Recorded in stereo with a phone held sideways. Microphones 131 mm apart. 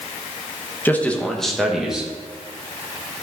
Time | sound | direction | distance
0.8 | a man speaking | 15° left (ahead or behind) | 1.2 m